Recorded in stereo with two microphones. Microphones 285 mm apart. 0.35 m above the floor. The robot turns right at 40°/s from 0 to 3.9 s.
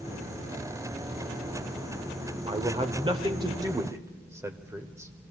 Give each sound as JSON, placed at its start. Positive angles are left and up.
{"t": 2.5, "sound": "a man speaking", "side_deg": -20, "distance_m": 1.0}